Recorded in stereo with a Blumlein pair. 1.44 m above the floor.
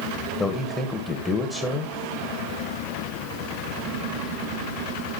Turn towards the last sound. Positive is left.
turn(degrees=15)